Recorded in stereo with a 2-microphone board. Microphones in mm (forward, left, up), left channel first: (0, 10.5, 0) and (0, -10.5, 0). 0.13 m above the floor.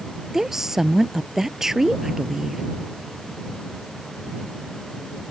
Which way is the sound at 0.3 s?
20° right (ahead or behind).